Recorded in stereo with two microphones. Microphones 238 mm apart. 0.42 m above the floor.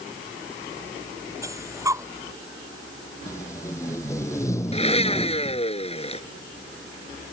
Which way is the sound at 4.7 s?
25° left (ahead or behind).